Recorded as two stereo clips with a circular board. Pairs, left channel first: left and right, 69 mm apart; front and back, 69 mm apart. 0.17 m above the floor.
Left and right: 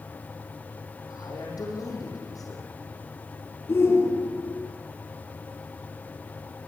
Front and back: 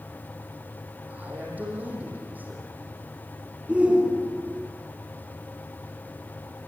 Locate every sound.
1.1 s a man speaking: 115° left, 9 m
3.7 s a shout: 115° left, 1.8 m